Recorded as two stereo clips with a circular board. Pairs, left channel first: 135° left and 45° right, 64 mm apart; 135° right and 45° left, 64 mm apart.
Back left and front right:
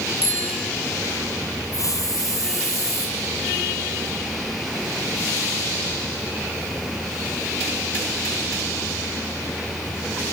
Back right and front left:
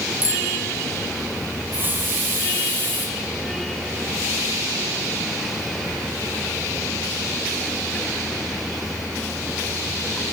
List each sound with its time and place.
0.2 s a bicycle bell: 110° left, 7 m
1.7 s a hiss: 105° left, 4.5 m